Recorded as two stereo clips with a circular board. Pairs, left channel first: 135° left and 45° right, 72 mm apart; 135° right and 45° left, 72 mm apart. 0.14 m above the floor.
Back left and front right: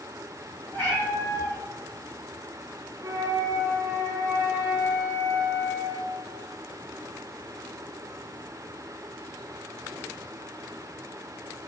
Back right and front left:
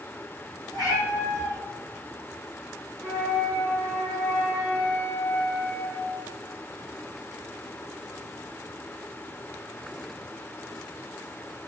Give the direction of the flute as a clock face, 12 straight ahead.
2 o'clock.